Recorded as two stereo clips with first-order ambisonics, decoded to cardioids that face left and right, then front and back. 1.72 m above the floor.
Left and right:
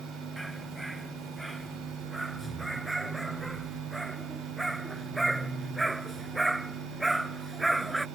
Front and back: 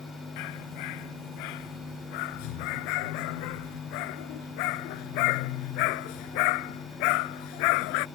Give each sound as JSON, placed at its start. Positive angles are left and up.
{"t": 0.4, "sound": "a dog barking", "azimuth_deg": 0}